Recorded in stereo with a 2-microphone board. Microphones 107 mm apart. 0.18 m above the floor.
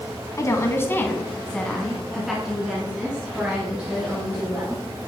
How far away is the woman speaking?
About 1.3 m.